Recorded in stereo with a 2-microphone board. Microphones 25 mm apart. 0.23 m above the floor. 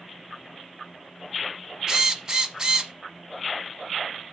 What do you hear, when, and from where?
1.9 s a drill: 30° right (ahead or behind), 1.0 m